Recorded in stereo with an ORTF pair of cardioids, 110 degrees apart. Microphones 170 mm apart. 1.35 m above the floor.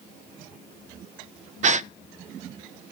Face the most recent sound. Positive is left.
turn(degrees=-45)